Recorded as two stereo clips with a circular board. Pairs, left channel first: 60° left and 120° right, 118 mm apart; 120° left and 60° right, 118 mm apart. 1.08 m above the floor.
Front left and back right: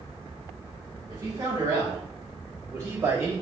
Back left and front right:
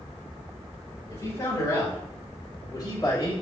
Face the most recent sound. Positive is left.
turn(degrees=175)